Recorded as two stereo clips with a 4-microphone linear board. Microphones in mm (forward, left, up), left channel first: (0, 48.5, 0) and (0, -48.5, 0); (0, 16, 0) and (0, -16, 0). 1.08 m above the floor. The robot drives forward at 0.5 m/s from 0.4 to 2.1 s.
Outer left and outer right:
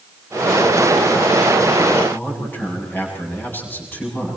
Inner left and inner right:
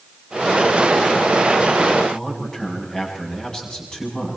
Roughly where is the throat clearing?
I don't hear throat clearing.